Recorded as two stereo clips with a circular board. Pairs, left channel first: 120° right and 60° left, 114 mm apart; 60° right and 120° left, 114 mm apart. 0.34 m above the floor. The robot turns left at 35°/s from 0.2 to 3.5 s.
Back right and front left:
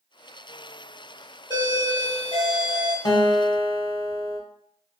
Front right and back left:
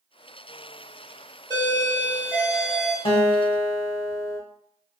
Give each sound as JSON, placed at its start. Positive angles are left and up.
{"t": 1.5, "sound": "a doorbell", "azimuth_deg": 75, "distance_m": 1.6}
{"t": 3.0, "sound": "a guitar", "azimuth_deg": -75, "distance_m": 0.6}